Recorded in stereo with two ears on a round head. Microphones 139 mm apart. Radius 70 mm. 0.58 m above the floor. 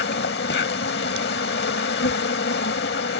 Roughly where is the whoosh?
I don't hear a whoosh.